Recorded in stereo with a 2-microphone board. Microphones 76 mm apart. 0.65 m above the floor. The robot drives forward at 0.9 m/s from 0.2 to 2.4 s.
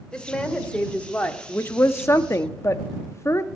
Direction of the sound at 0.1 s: 10° left (ahead or behind).